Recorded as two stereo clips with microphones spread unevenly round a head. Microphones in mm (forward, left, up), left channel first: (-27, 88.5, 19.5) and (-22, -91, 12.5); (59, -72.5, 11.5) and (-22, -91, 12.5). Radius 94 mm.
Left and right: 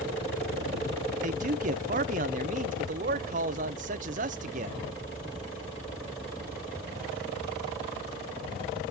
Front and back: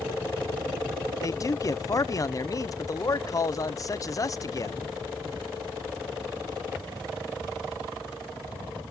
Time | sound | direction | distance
1.2 | a man speaking | 35° right | 0.5 m